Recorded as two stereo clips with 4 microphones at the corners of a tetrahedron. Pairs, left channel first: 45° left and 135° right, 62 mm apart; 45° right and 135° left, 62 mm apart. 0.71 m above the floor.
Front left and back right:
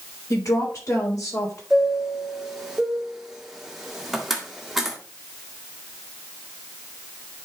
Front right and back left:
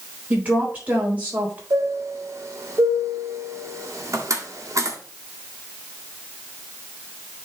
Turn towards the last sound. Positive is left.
turn(degrees=135)